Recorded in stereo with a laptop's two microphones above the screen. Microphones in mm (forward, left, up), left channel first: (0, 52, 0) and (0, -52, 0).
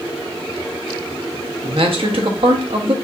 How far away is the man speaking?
About 0.8 m.